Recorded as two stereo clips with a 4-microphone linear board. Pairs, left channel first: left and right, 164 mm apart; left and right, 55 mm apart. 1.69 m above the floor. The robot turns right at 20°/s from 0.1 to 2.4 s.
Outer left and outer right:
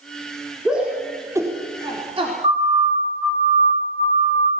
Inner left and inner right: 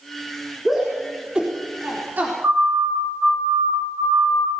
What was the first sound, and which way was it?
A shout, 5° right (ahead or behind).